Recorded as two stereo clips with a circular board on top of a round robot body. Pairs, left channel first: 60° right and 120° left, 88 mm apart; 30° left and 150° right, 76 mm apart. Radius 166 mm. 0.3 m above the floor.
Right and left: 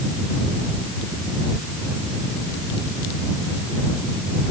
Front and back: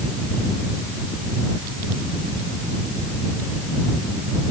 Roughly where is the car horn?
No car horn in this recording.